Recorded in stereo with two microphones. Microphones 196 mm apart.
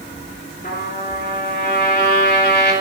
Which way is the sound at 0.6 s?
55° left (ahead or behind).